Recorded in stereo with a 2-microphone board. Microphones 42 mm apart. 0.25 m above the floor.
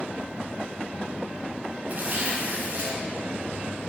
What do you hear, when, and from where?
1.9 s tearing paper: 40° right (ahead or behind), 2.0 m